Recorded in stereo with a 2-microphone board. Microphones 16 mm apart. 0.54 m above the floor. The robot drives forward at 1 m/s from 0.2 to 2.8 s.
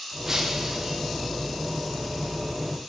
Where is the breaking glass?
25° right (ahead or behind), 4 m; by 1.0 s 35° right (ahead or behind), 3.5 m.